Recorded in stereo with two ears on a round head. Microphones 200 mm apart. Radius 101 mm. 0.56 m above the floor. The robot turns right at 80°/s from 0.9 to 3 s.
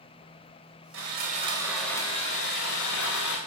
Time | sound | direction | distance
0.9 | sawing | 70° right | 3 m